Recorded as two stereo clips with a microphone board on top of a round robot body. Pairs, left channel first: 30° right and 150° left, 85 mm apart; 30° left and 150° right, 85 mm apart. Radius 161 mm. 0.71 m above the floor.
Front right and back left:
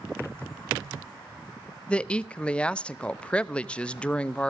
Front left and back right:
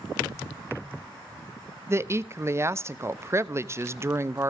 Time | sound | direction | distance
1.9 | a woman speaking | 100° right | 0.8 m